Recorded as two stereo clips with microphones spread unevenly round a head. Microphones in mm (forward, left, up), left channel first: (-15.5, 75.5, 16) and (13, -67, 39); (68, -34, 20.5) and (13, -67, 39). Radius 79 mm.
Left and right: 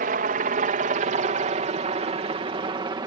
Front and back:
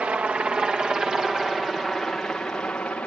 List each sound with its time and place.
0.0 s a helicopter: 75° right; by 3.1 s 20° right